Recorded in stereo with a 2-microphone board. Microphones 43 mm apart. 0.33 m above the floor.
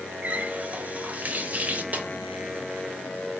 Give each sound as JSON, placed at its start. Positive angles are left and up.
{"t": 0.2, "sound": "a running tap", "side_deg": -35, "distance_m": 0.6}
{"t": 1.9, "sound": "a snare drum", "side_deg": -35, "distance_m": 0.7}